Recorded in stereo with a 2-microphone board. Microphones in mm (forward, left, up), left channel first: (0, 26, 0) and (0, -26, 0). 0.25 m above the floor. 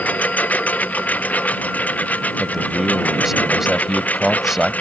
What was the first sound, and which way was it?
A lawn mower, 30° left (ahead or behind).